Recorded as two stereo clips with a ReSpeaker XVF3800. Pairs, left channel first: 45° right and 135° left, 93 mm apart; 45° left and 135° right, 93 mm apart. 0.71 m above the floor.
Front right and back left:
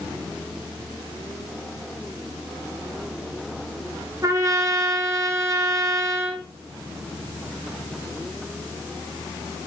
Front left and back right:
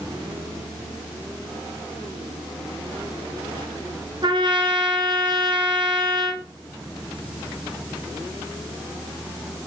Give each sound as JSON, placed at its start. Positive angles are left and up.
{"t": 4.2, "sound": "a trumpet", "azimuth_deg": -170, "distance_m": 2.5}